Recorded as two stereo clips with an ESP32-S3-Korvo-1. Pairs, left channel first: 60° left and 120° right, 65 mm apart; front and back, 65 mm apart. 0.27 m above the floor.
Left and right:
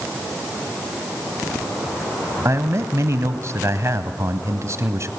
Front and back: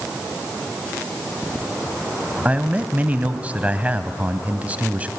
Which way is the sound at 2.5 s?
120° right.